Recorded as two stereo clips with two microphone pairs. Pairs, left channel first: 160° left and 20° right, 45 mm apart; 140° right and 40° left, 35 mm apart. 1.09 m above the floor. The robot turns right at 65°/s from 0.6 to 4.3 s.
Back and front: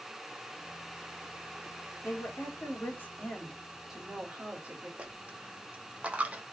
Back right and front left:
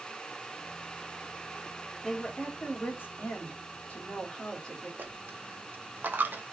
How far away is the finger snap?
No finger snap in this recording.